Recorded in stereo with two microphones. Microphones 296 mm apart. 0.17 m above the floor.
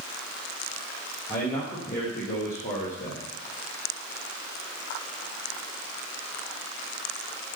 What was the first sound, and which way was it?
A man speaking, 25° left (ahead or behind).